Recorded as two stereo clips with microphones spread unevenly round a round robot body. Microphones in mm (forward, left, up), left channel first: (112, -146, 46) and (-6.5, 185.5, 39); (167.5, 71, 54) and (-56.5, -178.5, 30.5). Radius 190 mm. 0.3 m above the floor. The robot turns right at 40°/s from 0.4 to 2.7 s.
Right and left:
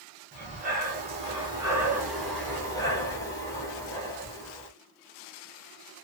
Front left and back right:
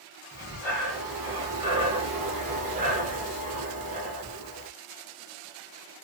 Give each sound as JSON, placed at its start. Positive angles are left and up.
{"t": 0.3, "sound": "breathing", "azimuth_deg": 125, "distance_m": 1.2}